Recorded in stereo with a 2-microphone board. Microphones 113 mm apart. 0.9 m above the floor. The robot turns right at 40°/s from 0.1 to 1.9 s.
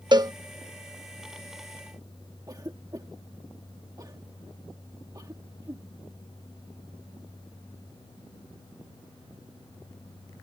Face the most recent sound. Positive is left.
turn(degrees=-35)  # may be behind; listen again after turning